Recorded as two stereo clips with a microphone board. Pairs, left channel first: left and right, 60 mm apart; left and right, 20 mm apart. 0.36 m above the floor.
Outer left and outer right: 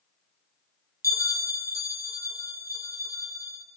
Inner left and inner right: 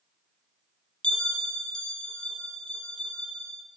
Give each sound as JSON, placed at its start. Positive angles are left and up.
{"t": 1.0, "sound": "a bell", "side_deg": 70, "distance_m": 1.3}